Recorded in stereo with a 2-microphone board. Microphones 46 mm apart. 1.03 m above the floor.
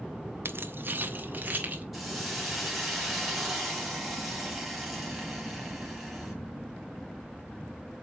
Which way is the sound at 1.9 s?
5° right (ahead or behind).